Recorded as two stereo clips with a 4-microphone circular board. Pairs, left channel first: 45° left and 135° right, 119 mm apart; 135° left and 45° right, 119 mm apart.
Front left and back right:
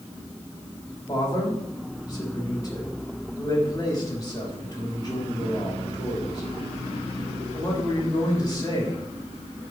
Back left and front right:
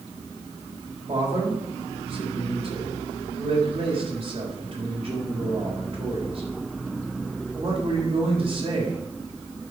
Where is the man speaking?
15° right, 3.5 m.